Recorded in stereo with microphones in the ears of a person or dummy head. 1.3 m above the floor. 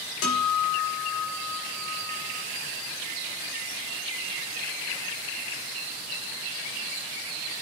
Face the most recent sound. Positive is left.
turn(degrees=80)